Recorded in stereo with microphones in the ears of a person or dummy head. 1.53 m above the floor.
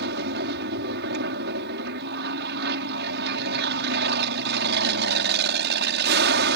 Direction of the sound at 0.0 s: 60° right (ahead or behind).